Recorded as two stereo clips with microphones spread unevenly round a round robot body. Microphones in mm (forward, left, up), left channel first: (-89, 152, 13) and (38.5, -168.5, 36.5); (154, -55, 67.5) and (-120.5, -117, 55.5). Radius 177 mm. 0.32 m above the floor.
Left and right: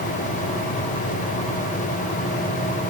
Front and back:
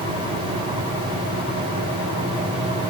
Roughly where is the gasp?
No gasp in this recording.